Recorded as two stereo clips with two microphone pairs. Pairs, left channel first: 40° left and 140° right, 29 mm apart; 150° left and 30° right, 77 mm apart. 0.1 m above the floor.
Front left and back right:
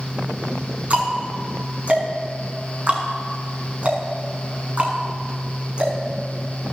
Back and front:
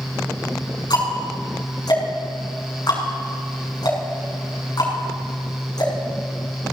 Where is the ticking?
Straight behind, 6 m.